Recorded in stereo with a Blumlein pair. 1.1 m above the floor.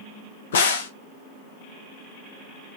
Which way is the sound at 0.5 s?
60° left.